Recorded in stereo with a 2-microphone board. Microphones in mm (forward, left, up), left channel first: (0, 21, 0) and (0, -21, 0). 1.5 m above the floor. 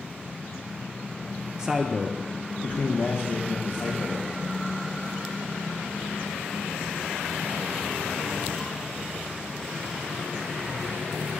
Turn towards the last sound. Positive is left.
turn(degrees=75)  # may be behind; listen again after turning